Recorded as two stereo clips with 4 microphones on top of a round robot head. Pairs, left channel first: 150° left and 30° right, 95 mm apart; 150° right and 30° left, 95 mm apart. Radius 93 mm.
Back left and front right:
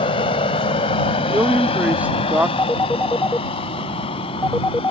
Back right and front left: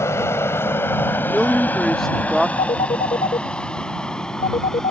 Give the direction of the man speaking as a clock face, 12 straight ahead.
2 o'clock.